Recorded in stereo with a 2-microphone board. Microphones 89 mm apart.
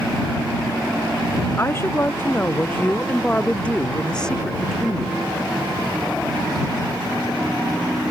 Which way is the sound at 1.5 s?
30° left (ahead or behind).